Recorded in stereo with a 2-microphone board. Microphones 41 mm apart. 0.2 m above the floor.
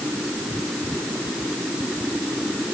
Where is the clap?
No clap in this recording.